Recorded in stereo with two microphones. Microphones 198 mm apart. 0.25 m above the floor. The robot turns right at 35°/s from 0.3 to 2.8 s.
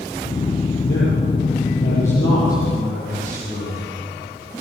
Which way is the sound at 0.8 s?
70° left.